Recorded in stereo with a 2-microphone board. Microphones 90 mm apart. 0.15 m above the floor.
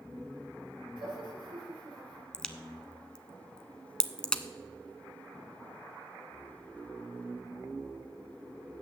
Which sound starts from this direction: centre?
A crack, at 2.3 s.